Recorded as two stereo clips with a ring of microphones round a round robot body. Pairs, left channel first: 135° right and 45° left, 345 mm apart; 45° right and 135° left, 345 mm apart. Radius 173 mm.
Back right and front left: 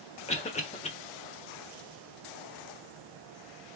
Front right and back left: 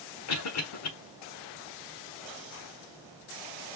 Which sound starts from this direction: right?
A cough, at 0.3 s.